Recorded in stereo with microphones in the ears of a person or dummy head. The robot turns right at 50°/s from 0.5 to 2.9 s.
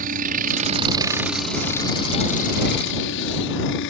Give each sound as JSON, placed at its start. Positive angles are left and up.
{"t": 0.0, "sound": "a helicopter", "azimuth_deg": -50}